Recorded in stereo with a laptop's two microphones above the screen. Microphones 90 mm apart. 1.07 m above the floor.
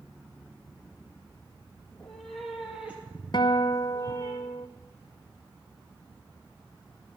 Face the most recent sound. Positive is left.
turn(degrees=50)  # may be behind; listen again after turning